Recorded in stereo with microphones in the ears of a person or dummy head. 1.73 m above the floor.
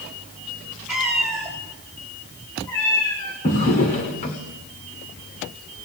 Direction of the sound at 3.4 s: 25° left (ahead or behind).